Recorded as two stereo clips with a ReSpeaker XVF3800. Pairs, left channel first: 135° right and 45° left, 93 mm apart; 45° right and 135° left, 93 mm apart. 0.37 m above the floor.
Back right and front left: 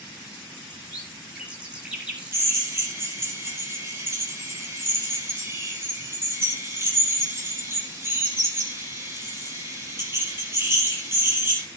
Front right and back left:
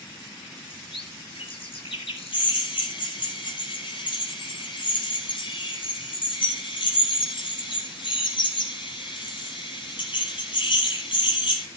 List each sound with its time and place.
0.7 s a bird: 35° right, 5.5 m
2.3 s a drill: 20° right, 5 m